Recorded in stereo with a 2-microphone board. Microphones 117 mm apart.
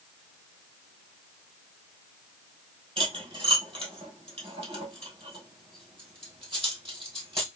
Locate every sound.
3.0 s cutlery clinking: 50° right (ahead or behind), 2 m